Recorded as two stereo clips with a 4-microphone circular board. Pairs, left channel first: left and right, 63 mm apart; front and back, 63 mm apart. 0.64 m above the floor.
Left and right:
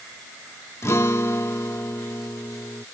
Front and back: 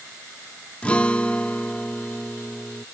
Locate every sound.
0.8 s a guitar: 65° left